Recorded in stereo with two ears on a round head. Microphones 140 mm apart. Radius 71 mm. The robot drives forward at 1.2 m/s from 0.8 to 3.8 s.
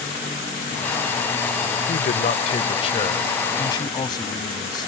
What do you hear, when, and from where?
1.9 s a man speaking: 60° left (ahead or behind); by 4.9 s 30° left (ahead or behind)